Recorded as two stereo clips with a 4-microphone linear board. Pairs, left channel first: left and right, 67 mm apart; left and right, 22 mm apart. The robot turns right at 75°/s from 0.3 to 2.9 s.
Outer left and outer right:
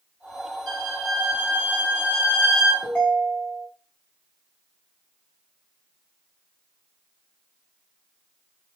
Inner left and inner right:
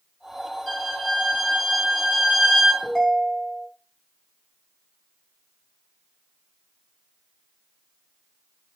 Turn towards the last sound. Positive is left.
turn(degrees=20)  # may be behind; listen again after turning